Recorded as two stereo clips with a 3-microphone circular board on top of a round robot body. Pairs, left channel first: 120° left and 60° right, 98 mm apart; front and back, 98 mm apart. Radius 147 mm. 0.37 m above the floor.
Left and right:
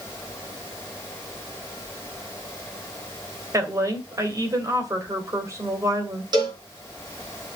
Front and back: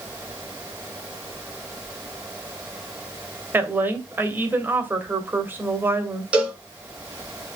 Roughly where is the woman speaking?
Behind right.